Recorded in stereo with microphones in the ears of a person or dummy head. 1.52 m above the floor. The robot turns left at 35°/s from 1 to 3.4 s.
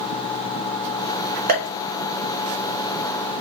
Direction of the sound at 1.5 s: 40° right (ahead or behind).